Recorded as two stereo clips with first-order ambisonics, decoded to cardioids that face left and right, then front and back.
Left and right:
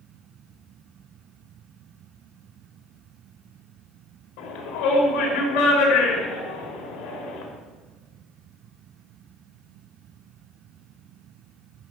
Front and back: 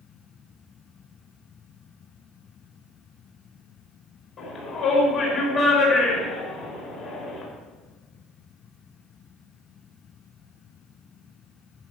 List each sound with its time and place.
4.4 s a shout: 65° left, 5 m